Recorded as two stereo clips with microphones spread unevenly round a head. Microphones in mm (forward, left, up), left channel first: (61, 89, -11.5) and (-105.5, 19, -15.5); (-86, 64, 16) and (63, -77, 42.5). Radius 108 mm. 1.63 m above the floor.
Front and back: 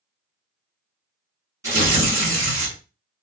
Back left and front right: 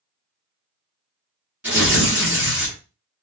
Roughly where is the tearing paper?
Right.